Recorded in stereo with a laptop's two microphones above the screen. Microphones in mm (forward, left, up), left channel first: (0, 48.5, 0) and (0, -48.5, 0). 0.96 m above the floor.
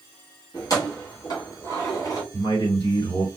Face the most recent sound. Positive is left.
turn(degrees=45)  # may be behind; listen again after turning